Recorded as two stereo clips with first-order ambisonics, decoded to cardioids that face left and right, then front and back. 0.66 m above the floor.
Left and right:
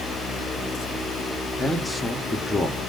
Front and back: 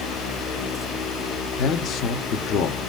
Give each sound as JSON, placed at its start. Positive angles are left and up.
{"t": 1.6, "sound": "a man speaking", "azimuth_deg": 5, "distance_m": 0.9}